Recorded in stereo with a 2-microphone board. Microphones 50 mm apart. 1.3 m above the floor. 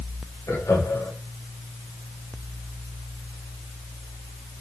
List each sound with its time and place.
0.5 s laughter: 85° left, 5.5 m